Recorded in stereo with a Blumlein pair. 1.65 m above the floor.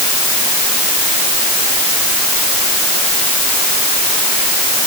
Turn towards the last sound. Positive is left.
No sound to turn to.